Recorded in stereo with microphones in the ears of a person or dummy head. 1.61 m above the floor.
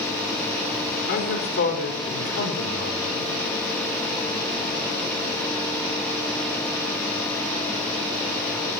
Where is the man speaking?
65° left (ahead or behind), 5 m; by 3.3 s 75° left (ahead or behind), 7 m.